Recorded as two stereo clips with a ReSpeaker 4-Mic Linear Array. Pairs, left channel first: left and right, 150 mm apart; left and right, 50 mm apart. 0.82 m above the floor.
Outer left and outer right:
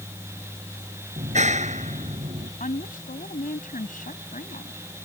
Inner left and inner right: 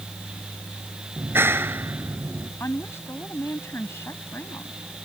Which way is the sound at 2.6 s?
70° left (ahead or behind).